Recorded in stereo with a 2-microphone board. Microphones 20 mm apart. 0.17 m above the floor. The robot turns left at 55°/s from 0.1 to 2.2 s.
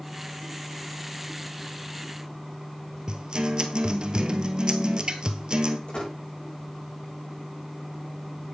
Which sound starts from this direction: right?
A guitar, at 3.1 s.